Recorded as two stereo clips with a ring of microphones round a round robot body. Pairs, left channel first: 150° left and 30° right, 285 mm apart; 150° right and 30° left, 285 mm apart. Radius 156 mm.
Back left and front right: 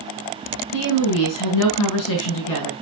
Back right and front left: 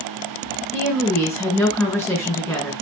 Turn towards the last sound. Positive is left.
turn(degrees=125)